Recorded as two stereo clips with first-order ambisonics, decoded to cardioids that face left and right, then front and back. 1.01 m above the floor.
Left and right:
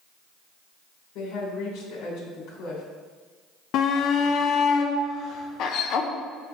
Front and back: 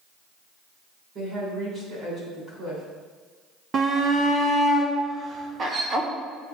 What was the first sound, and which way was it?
A woman speaking, 120° left.